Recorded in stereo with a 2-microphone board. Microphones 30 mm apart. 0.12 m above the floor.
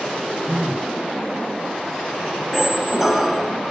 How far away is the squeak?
About 0.9 m.